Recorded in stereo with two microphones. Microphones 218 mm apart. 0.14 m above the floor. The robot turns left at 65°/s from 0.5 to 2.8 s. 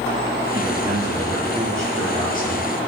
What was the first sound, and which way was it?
A man speaking, 120° right.